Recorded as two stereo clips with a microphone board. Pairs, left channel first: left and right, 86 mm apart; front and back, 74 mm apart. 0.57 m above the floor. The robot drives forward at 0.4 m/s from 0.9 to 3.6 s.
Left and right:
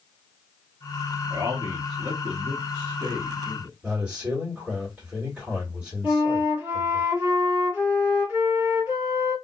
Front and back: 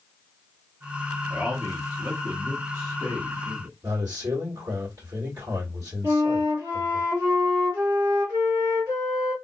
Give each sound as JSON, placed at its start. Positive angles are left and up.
{"t": 1.3, "sound": "a man speaking", "azimuth_deg": -110, "distance_m": 0.9}
{"t": 3.8, "sound": "a man speaking", "azimuth_deg": -160, "distance_m": 1.8}
{"t": 6.0, "sound": "a flute", "azimuth_deg": -155, "distance_m": 1.7}